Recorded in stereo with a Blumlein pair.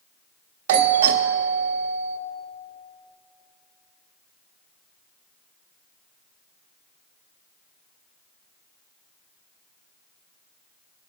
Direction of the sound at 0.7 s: 55° right.